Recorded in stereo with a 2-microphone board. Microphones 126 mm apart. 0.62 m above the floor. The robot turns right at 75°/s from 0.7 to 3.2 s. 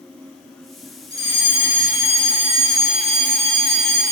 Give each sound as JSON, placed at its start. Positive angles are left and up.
{"t": 1.1, "sound": "a fire alarm", "azimuth_deg": -155, "distance_m": 6.0}